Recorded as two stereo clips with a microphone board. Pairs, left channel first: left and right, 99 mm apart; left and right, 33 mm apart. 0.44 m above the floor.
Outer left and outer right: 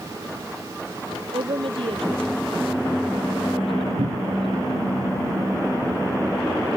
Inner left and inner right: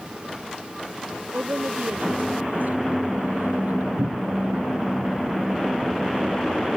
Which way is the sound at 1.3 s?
65° right (ahead or behind).